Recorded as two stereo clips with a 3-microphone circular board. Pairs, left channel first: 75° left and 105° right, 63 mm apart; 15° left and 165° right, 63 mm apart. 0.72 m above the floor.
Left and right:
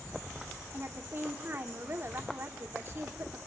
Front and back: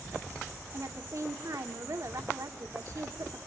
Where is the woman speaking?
150° right, 2 m.